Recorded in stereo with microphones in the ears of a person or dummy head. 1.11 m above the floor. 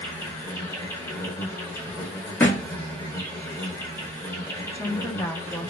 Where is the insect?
15° left (ahead or behind), 0.9 m.